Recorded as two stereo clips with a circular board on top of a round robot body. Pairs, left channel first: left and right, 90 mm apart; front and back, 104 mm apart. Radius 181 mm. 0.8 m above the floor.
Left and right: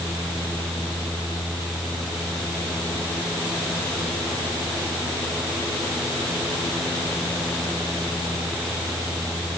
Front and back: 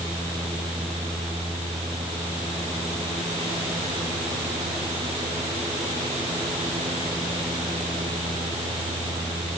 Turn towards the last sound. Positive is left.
No sound to turn to.